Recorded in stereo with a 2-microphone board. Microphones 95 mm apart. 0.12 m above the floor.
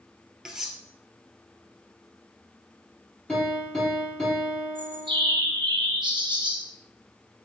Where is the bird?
60° right (ahead or behind), 3.5 m.